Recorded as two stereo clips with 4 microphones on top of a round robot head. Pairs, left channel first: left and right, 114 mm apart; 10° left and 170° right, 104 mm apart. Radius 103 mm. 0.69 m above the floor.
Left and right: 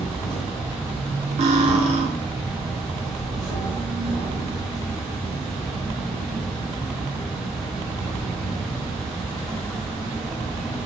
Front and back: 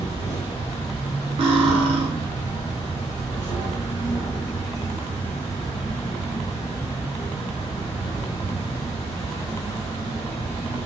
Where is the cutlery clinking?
125° right, 0.5 m.